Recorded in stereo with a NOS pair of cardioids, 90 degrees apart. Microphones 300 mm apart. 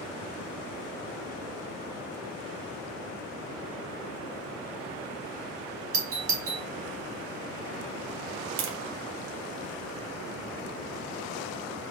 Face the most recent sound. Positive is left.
turn(degrees=-60)